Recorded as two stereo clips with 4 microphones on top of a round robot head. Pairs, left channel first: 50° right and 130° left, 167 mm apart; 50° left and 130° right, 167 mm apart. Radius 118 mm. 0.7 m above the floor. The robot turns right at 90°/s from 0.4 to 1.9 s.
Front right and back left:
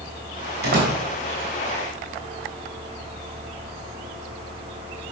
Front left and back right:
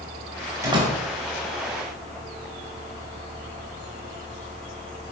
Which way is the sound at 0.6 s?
155° left.